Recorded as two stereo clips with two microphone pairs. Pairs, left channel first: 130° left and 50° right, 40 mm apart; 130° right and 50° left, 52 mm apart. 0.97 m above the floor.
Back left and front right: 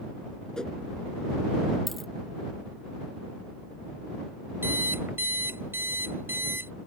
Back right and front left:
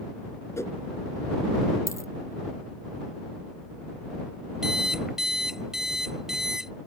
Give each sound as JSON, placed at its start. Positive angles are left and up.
{"t": 0.6, "sound": "a whoosh", "azimuth_deg": -160}
{"t": 1.9, "sound": "a dropped coin", "azimuth_deg": -140}
{"t": 4.6, "sound": "an alarm clock", "azimuth_deg": -30}